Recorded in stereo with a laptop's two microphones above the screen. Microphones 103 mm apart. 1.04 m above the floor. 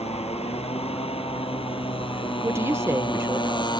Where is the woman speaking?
25° right (ahead or behind).